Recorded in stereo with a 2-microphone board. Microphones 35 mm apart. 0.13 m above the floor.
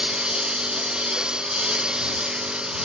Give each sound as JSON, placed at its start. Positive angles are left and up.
{"t": 0.0, "sound": "a lawn mower", "side_deg": -30}